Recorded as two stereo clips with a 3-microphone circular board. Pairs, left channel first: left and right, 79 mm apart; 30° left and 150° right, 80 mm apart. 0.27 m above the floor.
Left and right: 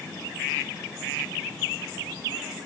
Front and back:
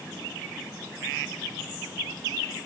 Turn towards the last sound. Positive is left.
No sound to turn to.